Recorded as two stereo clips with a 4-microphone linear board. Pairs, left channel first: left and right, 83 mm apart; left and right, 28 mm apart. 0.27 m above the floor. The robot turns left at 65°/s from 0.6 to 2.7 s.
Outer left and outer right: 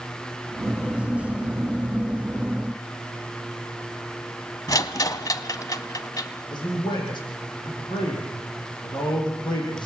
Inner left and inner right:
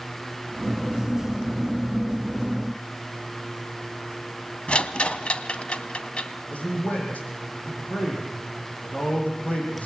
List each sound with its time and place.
4.7 s a rattle: 50° left (ahead or behind), 1.1 m
6.5 s a man speaking: 65° left (ahead or behind), 9.5 m